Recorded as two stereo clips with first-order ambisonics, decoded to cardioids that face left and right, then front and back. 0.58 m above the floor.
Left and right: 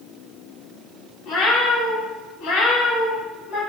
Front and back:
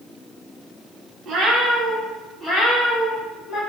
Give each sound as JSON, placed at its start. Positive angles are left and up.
{"t": 1.2, "sound": "a cat meowing", "azimuth_deg": 120, "distance_m": 0.9}